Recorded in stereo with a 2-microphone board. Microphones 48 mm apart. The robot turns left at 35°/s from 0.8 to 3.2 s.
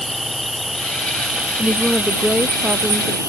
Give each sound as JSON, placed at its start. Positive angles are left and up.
{"t": 0.0, "sound": "an insect", "azimuth_deg": 0}
{"t": 1.6, "sound": "a woman speaking", "azimuth_deg": -5}